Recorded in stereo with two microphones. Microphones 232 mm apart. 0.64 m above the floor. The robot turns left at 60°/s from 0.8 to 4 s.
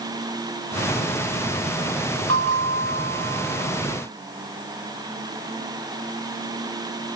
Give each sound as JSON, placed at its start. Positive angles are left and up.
{"t": 2.3, "sound": "a bell", "azimuth_deg": -85, "distance_m": 2.5}